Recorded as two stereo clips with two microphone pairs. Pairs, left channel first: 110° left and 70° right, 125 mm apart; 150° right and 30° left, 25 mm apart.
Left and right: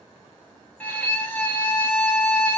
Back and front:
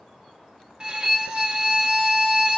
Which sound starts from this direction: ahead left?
A violin, at 0.8 s.